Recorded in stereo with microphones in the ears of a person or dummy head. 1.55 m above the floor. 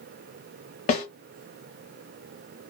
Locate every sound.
0.9 s a snare drum: 40° left (ahead or behind), 1.1 m